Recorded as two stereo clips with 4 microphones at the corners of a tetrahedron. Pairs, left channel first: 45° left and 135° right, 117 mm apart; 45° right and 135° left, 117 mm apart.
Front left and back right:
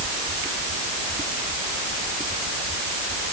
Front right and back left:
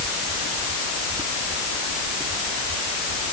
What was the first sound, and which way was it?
Only background noise.